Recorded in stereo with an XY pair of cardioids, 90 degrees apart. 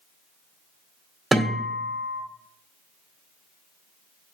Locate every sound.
1.3 s a guitar: 20° right, 2 m